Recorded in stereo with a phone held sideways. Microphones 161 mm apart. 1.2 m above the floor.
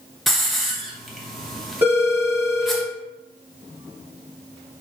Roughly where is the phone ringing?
Centre.